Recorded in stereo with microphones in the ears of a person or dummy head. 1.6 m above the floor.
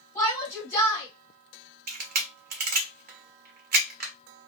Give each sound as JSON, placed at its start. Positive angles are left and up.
{"t": 0.1, "sound": "a shout", "side_deg": 15, "distance_m": 1.8}
{"t": 1.9, "sound": "a camera shutter", "side_deg": -50, "distance_m": 0.8}